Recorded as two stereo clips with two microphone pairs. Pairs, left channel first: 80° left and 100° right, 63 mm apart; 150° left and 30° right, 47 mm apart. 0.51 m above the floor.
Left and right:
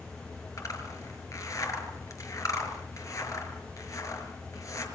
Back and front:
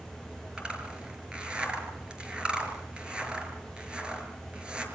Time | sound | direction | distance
0.6 | a zipper | 40° left | 5.5 m